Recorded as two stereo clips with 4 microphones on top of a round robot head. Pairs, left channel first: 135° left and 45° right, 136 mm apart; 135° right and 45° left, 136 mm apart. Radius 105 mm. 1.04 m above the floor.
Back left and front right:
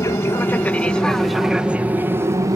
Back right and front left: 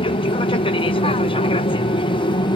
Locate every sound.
0.0 s an aircraft: 165° right; by 2.6 s 100° right